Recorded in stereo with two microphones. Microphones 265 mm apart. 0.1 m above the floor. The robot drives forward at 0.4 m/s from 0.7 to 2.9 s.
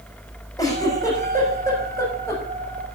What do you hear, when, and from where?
0.6 s a giggle: 10° left (ahead or behind), 6 m